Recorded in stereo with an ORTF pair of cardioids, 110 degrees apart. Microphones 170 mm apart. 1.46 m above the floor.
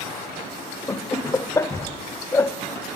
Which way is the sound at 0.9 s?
15° left.